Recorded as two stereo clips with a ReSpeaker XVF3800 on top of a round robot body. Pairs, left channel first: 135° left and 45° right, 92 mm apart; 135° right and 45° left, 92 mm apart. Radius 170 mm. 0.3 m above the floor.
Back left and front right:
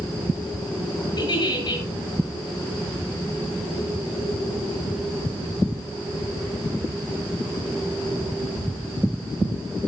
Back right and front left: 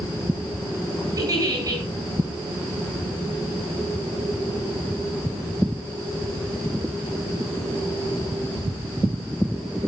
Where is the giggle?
95° left, 10 m.